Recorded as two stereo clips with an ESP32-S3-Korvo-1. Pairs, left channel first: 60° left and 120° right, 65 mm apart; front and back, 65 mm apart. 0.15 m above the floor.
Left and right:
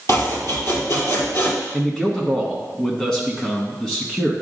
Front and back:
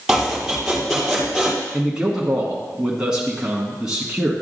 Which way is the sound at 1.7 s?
125° left.